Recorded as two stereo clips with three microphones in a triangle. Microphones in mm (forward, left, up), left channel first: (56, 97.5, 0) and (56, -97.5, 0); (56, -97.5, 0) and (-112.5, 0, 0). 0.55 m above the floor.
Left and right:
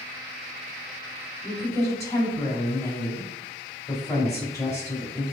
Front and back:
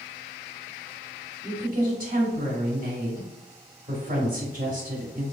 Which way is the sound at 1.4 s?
160° left.